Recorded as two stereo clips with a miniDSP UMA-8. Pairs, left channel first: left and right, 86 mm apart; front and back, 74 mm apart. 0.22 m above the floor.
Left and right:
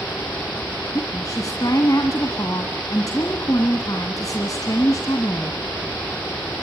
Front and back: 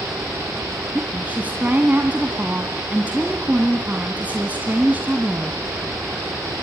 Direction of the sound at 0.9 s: 120° left.